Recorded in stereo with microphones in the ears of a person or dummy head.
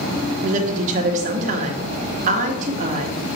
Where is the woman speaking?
45° right (ahead or behind), 1.2 m.